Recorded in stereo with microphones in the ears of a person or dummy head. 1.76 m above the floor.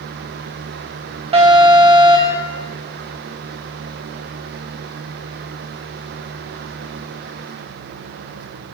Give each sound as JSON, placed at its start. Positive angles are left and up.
{"t": 1.3, "sound": "an alarm", "side_deg": -30, "distance_m": 2.5}